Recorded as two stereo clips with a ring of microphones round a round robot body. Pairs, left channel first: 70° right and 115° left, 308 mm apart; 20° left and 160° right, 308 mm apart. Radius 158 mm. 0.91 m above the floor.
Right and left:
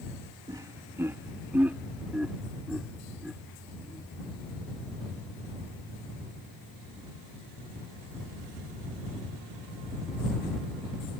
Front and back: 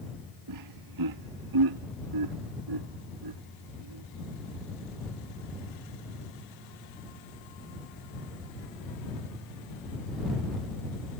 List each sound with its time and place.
0.5 s laughter: 170° right; by 4.0 s 160° right